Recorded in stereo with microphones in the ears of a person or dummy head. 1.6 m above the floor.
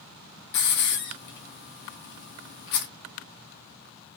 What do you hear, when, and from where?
0.5 s a hiss: 55° left (ahead or behind), 0.6 m